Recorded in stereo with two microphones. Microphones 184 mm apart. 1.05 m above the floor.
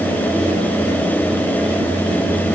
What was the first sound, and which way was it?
Only background noise.